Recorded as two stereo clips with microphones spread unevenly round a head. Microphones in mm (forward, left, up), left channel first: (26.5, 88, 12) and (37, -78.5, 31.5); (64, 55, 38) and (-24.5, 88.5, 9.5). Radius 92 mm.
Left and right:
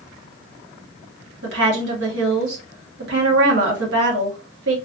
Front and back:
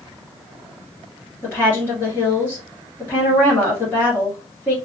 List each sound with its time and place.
1.4 s a woman speaking: 105° right, 1.3 m